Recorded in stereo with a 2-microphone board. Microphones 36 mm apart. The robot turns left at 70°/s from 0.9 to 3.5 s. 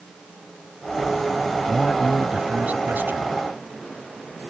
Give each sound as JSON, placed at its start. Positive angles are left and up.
{"t": 1.7, "sound": "a man speaking", "azimuth_deg": 25}